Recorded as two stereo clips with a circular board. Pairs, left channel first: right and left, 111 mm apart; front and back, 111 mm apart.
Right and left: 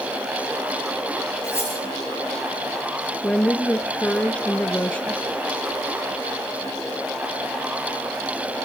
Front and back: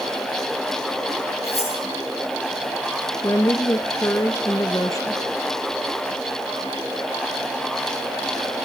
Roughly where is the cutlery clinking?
Ahead.